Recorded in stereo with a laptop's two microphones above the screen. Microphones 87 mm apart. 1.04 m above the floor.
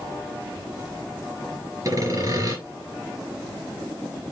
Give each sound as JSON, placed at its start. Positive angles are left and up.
{"t": 1.9, "sound": "sawing", "side_deg": -40, "distance_m": 3.5}